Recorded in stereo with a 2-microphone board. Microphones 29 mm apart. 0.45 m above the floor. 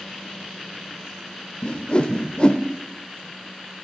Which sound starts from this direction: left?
A whoosh, at 1.6 s.